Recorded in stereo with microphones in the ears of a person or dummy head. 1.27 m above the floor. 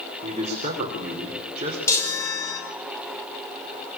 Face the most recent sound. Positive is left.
turn(degrees=20)  # may be behind; listen again after turning